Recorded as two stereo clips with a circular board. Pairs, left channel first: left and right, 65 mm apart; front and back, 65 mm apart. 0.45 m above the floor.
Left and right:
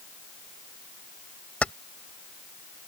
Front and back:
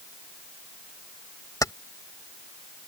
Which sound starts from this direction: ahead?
Keys jangling, at 1.6 s.